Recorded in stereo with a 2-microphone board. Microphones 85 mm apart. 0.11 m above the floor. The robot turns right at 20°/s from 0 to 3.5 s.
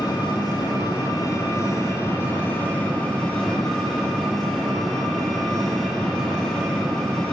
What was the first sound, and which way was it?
An engine running, 100° left.